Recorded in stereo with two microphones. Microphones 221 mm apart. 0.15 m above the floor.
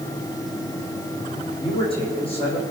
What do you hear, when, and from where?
1.6 s a man speaking: 25° left (ahead or behind), 7.5 m